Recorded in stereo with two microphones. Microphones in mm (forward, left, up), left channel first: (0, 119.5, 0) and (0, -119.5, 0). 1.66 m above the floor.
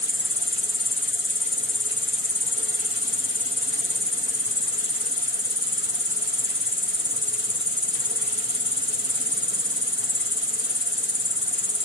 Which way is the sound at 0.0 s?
50° left (ahead or behind).